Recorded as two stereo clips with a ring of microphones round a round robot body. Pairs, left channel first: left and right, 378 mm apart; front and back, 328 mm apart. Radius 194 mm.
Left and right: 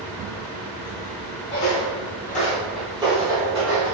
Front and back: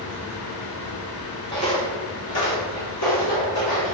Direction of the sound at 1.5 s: 70° left.